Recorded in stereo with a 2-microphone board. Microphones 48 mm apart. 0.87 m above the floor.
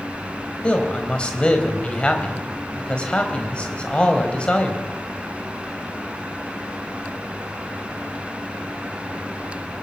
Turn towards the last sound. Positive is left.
turn(degrees=20)  # may be behind; listen again after turning